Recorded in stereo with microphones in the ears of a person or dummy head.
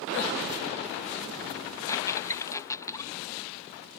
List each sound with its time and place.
1.9 s a squeak: 15° left (ahead or behind)